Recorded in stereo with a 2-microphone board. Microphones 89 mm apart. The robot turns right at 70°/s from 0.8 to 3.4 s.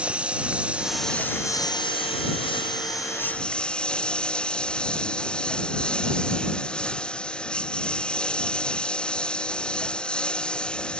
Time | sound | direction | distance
0.0 | a lawn mower | 15° right | ?